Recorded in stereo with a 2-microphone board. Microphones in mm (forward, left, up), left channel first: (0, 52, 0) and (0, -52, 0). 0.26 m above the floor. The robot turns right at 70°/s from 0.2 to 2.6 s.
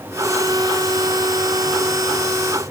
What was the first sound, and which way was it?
Only background noise.